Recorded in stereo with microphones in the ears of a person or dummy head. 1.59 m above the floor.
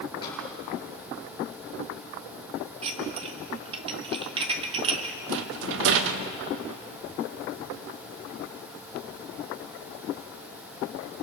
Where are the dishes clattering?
30° right (ahead or behind), 1.5 m.